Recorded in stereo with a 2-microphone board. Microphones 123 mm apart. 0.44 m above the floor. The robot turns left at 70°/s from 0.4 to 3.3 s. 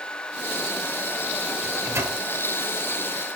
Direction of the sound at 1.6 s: 5° right (ahead or behind).